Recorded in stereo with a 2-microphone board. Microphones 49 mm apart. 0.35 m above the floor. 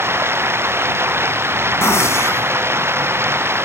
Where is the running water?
55° right (ahead or behind).